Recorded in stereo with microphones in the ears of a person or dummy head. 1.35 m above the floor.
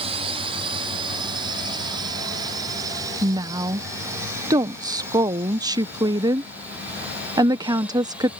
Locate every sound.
0.0 s a drone: 25° right (ahead or behind); by 8.4 s 5° right (ahead or behind)
3.2 s a woman speaking: 20° right (ahead or behind)